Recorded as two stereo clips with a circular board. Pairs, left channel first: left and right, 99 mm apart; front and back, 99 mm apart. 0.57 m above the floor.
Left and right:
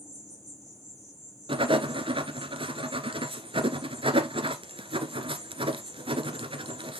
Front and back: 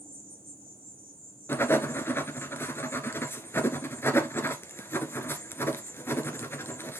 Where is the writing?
65° right, 1.3 m.